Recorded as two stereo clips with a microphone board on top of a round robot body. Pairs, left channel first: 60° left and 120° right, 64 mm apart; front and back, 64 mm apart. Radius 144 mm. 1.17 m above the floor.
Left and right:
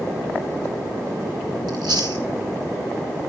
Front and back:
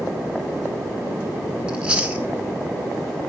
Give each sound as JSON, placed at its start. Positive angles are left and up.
{"t": 1.7, "sound": "chewing", "azimuth_deg": -110, "distance_m": 0.9}